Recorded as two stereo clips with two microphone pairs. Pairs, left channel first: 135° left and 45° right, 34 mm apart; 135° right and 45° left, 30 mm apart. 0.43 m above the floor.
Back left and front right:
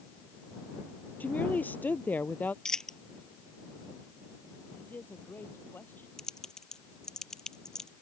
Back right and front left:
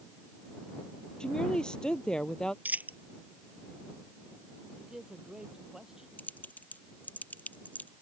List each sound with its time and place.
1.2 s a woman speaking: 165° left
2.6 s a dropped coin: 60° left
4.8 s a man speaking: 115° left
6.2 s typing on a keyboard: 155° right